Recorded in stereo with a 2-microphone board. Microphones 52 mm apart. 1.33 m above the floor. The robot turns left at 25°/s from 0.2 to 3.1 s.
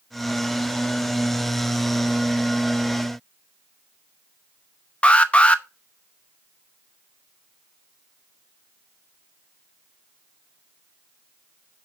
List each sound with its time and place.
5.0 s an alarm: 25° left (ahead or behind), 0.8 m